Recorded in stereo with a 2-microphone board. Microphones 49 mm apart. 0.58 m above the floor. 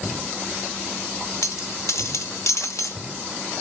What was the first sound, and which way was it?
A dropped coin, 75° left (ahead or behind).